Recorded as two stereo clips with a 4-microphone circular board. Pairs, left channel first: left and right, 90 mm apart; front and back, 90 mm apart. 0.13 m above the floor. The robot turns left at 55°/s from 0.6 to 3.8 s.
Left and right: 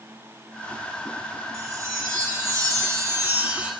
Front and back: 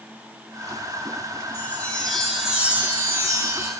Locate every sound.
1.5 s a chime: 50° right, 2 m; by 3.7 s 170° right, 2 m